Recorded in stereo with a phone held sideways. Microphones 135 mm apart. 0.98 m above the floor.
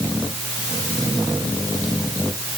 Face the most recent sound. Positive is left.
No sound to turn to.